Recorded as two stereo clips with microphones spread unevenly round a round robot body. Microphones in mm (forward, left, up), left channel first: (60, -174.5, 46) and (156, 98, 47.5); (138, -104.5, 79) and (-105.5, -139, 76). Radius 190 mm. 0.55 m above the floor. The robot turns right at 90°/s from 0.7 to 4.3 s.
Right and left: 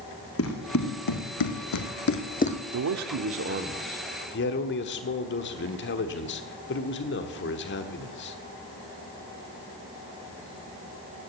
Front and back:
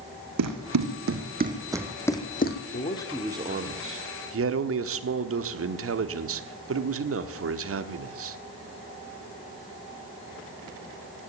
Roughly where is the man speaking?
Ahead left.